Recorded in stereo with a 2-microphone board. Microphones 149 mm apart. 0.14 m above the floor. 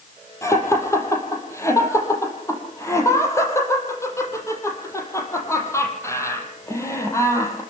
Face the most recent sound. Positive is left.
turn(degrees=20)  # may be behind; listen again after turning